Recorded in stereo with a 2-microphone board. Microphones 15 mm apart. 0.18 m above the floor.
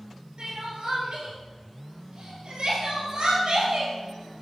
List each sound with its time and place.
0.4 s crying: 70° right (ahead or behind), 2.5 m